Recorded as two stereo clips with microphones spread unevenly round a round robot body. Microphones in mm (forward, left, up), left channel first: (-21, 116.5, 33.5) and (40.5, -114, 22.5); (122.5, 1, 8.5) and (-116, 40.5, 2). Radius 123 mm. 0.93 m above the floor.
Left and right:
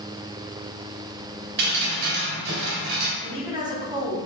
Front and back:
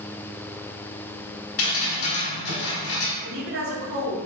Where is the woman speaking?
145° right, 2.5 m.